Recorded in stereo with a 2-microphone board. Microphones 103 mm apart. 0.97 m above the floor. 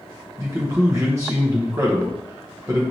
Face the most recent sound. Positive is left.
turn(degrees=-30)  # may be behind; listen again after turning